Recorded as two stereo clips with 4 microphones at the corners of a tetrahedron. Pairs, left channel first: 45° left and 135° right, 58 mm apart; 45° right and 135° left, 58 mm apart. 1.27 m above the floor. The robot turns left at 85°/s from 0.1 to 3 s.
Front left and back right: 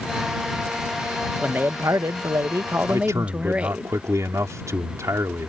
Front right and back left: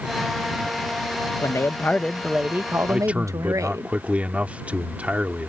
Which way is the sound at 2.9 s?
150° right.